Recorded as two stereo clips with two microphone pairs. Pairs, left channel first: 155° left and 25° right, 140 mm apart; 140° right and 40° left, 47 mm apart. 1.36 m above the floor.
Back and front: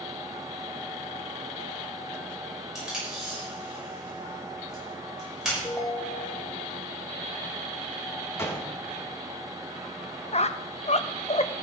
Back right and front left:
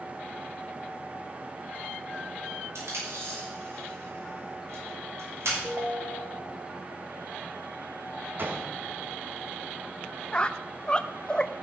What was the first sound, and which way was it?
Tape being pulled, 60° left.